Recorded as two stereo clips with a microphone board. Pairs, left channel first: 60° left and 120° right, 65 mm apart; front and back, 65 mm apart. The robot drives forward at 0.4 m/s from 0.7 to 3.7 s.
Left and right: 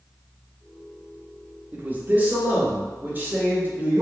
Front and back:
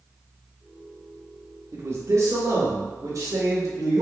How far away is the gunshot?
No gunshot in this recording.